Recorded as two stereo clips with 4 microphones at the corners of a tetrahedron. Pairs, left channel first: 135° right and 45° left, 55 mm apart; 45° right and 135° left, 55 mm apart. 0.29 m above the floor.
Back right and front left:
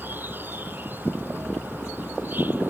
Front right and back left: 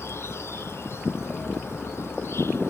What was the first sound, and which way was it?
An insect, 5° right.